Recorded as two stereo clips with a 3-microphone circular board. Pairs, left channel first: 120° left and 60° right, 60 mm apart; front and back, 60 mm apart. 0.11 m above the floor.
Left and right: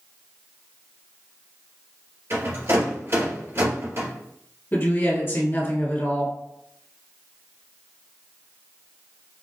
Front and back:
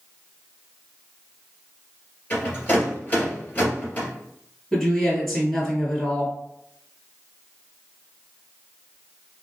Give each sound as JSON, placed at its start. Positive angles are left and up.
{"t": 2.3, "sound": "a rattle", "azimuth_deg": -55, "distance_m": 2.0}
{"t": 4.7, "sound": "a woman speaking", "azimuth_deg": 85, "distance_m": 2.0}